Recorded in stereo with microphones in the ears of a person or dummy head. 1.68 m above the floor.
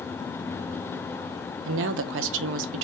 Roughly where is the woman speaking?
Right.